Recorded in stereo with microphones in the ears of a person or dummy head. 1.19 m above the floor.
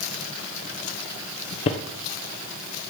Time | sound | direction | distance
1.7 | footsteps | 35° left (ahead or behind) | 1.4 m